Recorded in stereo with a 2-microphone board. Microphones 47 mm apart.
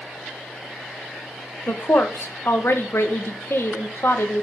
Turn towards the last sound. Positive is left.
turn(degrees=60)  # may be behind; listen again after turning